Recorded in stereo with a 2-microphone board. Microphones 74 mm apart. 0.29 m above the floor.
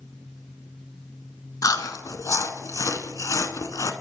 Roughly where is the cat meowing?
No cat meowing in this recording.